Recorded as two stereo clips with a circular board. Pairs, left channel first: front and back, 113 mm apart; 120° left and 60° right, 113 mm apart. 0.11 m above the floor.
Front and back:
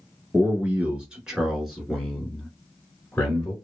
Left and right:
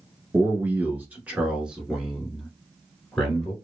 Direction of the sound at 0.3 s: 115° right.